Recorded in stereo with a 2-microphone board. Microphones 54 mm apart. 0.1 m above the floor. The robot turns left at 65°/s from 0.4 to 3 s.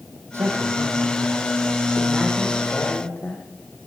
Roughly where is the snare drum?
I don't hear a snare drum.